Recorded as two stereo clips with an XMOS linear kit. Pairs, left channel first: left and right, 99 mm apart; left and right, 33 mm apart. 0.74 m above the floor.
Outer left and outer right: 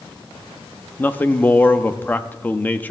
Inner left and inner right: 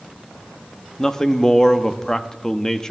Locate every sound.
1.0 s a man speaking: 15° left (ahead or behind), 0.7 m